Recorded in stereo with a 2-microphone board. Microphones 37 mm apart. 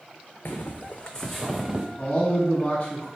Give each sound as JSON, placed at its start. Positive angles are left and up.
{"t": 0.5, "sound": "footsteps", "side_deg": 80, "distance_m": 0.7}
{"t": 2.0, "sound": "a man speaking", "side_deg": 30, "distance_m": 1.2}